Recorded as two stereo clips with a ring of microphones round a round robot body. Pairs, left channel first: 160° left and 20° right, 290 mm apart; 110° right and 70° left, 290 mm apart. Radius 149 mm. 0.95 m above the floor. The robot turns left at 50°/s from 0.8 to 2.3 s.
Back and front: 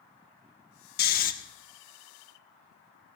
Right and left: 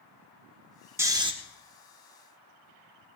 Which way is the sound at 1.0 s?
140° left.